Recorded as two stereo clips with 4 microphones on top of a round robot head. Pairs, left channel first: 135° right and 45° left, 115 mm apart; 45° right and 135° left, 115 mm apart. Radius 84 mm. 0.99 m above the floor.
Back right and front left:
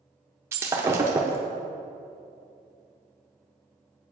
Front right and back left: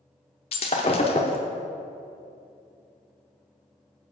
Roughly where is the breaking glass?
Ahead.